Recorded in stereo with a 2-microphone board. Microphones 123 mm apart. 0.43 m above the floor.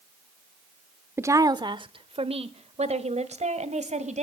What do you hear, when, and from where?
1.2 s a woman speaking: 20° right (ahead or behind), 0.7 m; by 4.2 s 70° right (ahead or behind), 2 m